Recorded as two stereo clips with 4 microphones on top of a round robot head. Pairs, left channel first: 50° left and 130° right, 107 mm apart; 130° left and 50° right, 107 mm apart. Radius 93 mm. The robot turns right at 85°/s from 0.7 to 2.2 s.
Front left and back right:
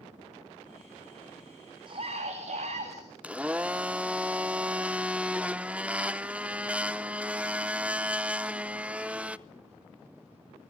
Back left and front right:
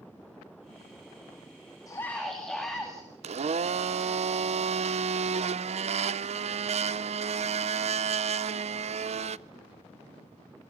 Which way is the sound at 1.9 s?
175° right.